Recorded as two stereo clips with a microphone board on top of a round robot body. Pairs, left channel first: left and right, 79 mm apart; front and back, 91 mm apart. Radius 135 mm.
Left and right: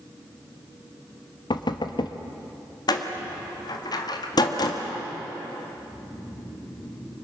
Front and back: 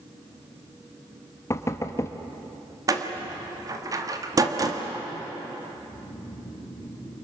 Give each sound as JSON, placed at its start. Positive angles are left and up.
{"t": 1.5, "sound": "knocking", "azimuth_deg": 60, "distance_m": 1.2}
{"t": 2.9, "sound": "a door slam", "azimuth_deg": 125, "distance_m": 1.8}
{"t": 5.7, "sound": "snoring", "azimuth_deg": 35, "distance_m": 5.5}